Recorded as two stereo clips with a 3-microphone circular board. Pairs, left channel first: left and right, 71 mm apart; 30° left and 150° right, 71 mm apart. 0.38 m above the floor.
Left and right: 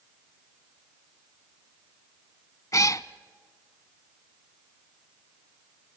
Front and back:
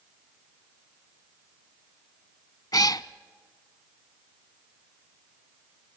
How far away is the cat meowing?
About 0.6 m.